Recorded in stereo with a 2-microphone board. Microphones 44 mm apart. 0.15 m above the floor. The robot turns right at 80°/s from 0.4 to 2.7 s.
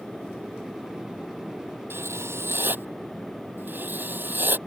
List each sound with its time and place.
1.9 s writing: 115° right; by 4.6 s 50° right